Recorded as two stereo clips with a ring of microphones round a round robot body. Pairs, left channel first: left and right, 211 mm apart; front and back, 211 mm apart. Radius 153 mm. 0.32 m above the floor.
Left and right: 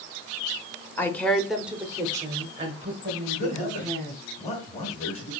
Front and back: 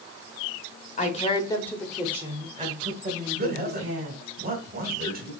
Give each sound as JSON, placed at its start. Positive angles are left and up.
{"t": 1.0, "sound": "a woman speaking", "azimuth_deg": 15, "distance_m": 1.1}
{"t": 3.3, "sound": "a man speaking", "azimuth_deg": 145, "distance_m": 1.8}